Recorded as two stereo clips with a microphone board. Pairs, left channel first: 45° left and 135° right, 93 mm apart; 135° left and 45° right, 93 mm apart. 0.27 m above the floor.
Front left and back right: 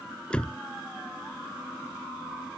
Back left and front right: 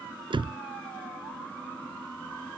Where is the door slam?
35° right.